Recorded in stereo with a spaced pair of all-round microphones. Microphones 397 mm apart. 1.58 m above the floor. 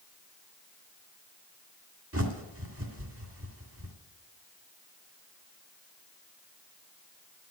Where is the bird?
35° right (ahead or behind), 1.8 m.